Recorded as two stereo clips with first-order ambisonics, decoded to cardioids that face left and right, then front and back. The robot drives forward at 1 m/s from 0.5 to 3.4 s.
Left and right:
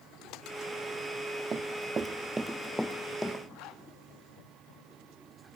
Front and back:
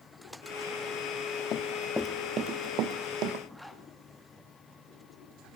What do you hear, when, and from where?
1.5 s running footsteps: 30° right, 1.3 m; by 3.4 s 170° left, 2 m
3.5 s a zipper: 90° left, 1.8 m